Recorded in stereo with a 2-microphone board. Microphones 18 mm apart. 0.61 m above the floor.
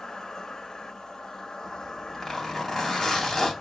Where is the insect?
25° left (ahead or behind), 1.8 m.